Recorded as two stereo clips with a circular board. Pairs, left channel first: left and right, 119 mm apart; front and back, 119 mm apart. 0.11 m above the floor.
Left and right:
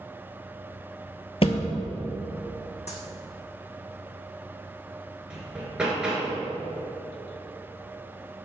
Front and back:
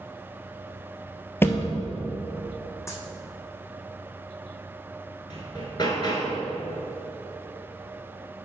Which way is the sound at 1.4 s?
70° left.